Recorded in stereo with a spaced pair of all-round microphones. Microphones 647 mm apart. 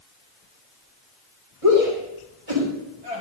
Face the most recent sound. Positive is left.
turn(degrees=-60)  # may be behind; listen again after turning